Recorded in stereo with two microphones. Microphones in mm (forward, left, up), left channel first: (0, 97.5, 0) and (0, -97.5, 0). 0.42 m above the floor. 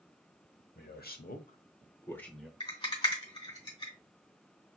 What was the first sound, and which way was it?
A man speaking, 55° left (ahead or behind).